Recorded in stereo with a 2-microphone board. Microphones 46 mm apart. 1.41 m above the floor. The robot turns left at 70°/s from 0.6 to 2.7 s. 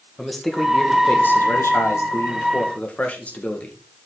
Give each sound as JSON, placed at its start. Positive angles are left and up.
{"t": 0.2, "sound": "a man speaking", "azimuth_deg": 175, "distance_m": 1.8}